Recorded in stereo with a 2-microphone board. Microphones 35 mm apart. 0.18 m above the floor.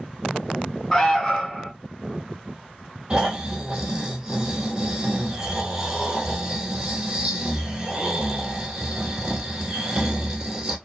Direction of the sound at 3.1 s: 30° right (ahead or behind).